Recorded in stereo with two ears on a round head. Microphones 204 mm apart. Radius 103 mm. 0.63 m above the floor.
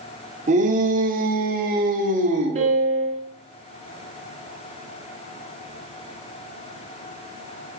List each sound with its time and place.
0.5 s a shout: 35° right (ahead or behind), 1.7 m; by 2.6 s 25° right (ahead or behind), 1.4 m
2.5 s a piano: 30° right (ahead or behind), 1.6 m